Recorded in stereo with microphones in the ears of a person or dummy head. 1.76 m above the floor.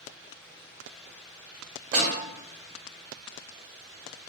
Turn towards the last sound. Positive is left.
turn(degrees=-40)  # may be behind; listen again after turning